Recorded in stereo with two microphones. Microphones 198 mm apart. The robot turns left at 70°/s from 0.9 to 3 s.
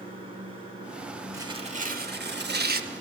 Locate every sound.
0.0 s running water: 150° right, 3 m; by 3.0 s 60° left, 3 m
1.3 s tearing paper: 20° right, 0.7 m; by 2.9 s 125° right, 0.7 m